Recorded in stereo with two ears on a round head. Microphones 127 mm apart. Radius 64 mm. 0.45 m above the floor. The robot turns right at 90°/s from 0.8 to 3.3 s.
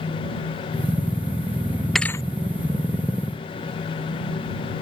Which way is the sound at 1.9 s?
Centre (ahead or behind).